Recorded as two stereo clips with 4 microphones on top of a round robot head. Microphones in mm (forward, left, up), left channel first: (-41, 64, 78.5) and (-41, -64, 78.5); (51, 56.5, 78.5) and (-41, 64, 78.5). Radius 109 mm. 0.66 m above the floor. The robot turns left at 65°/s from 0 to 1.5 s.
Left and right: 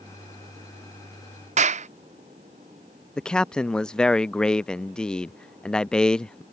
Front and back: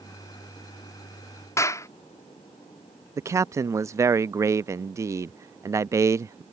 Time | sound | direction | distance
1.6 | a clap | 65° right | ?
3.2 | a man speaking | 170° left | ?